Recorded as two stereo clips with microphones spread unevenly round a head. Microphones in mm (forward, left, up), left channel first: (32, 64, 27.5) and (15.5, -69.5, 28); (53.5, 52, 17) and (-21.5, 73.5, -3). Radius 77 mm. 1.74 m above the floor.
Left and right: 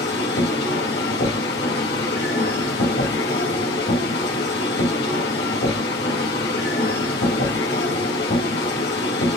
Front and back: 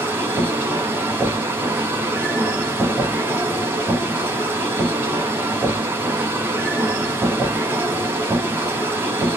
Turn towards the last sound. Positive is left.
turn(degrees=95)